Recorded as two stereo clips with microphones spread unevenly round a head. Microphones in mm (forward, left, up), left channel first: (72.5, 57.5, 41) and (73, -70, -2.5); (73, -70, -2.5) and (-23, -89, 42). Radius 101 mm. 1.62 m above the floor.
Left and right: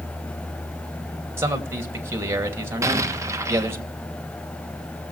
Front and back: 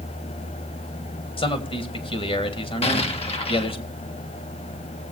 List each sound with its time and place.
1.4 s a man speaking: 15° right, 2.5 m
2.8 s an explosion: 15° right, 1.5 m